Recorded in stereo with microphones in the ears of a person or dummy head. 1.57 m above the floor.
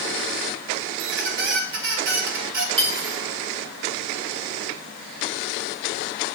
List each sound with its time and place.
1.0 s a squeak: 60° right (ahead or behind), 1.1 m
2.8 s cutlery clinking: 35° right (ahead or behind), 1.3 m